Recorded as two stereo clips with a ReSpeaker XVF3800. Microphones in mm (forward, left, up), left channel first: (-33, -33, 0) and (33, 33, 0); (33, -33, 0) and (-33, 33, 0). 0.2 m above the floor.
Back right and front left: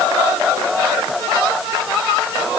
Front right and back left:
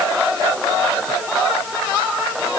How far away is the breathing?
I don't hear breathing.